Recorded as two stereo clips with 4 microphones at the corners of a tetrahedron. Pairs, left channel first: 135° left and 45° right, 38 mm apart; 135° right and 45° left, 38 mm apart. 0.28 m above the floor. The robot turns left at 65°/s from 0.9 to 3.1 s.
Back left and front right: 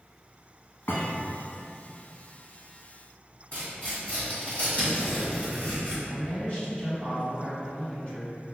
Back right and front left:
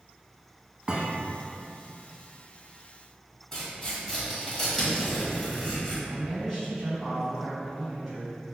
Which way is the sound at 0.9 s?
115° left.